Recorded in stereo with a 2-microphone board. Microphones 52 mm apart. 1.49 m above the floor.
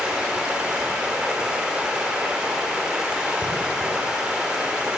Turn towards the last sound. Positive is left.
turn(degrees=-15)  # may be behind; listen again after turning